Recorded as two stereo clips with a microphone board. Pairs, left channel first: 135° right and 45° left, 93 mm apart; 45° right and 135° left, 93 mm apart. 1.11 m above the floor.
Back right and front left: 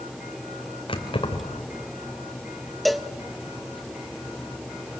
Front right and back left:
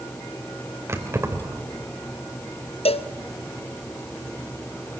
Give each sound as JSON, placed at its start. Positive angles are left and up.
{"t": 0.9, "sound": "keys jangling", "azimuth_deg": -165, "distance_m": 3.5}
{"t": 2.9, "sound": "a cowbell", "azimuth_deg": -45, "distance_m": 0.9}